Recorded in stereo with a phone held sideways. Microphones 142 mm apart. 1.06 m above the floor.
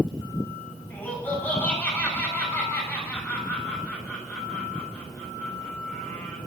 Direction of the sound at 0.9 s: 10° left (ahead or behind).